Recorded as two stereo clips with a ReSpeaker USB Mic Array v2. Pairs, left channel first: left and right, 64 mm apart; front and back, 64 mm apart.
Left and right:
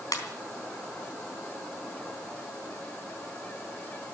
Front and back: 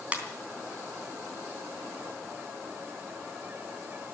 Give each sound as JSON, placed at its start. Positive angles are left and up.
{"t": 0.1, "sound": "a ringtone", "azimuth_deg": 110, "distance_m": 3.5}